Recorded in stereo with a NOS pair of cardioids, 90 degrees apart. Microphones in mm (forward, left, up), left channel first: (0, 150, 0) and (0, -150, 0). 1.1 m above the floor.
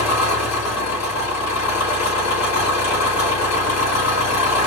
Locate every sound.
0.0 s an engine running: 60° left, 4 m